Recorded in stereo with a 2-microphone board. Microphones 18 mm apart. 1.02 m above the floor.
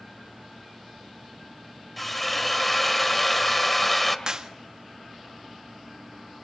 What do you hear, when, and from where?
2.0 s a drill: 10° left (ahead or behind), 1.9 m
4.3 s a clap: 40° right (ahead or behind), 1.6 m